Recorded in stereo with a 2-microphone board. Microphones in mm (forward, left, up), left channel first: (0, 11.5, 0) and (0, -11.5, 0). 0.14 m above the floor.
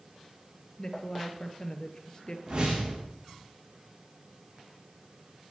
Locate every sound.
0.8 s a woman speaking: 30° left (ahead or behind), 2.5 m
2.5 s a whoosh: 40° right (ahead or behind), 7.5 m